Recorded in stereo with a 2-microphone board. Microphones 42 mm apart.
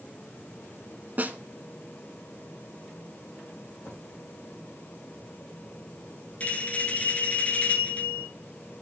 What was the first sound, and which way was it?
A snare drum, 40° right (ahead or behind).